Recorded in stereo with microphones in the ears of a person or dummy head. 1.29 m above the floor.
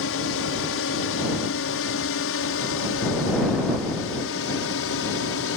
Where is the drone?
65° left (ahead or behind).